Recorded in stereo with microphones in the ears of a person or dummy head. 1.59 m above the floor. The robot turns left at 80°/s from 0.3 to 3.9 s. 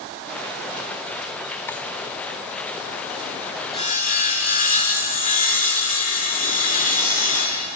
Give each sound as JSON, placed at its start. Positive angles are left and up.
{"t": 1.7, "sound": "a drawer", "side_deg": 15, "distance_m": 3.0}
{"t": 3.7, "sound": "sawing", "side_deg": 25, "distance_m": 2.5}